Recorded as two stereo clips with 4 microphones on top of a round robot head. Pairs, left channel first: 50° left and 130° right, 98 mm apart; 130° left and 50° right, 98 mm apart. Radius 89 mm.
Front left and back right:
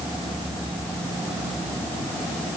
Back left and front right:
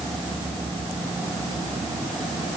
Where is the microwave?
No microwave in this recording.